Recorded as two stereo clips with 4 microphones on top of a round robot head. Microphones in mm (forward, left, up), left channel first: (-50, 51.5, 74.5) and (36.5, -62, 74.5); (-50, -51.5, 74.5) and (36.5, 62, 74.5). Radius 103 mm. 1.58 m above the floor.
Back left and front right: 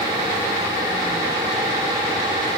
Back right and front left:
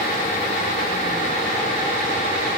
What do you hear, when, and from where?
Only background noise.